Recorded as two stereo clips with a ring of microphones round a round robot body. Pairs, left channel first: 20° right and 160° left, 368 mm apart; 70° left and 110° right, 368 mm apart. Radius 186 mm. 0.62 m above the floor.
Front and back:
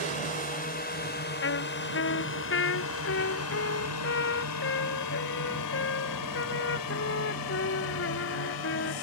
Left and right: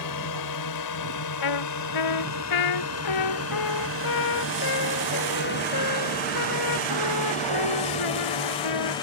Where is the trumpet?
35° left.